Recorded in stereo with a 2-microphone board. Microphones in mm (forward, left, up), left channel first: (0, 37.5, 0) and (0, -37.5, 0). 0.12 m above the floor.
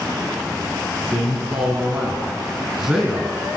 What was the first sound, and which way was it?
A man speaking, 10° right (ahead or behind).